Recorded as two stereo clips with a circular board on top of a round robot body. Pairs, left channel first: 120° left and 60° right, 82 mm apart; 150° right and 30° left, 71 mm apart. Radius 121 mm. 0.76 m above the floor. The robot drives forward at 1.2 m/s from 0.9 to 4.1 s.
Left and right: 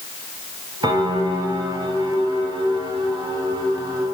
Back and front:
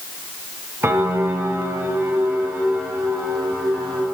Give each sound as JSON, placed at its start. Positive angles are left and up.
{"t": 0.8, "sound": "a piano", "azimuth_deg": -25, "distance_m": 6.0}